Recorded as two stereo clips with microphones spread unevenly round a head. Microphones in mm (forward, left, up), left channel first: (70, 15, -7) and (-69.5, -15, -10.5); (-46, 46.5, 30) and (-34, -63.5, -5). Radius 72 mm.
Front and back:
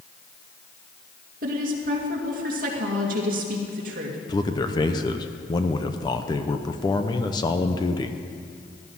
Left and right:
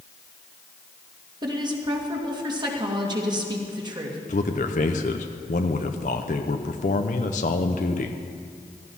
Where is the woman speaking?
135° right, 2.5 m.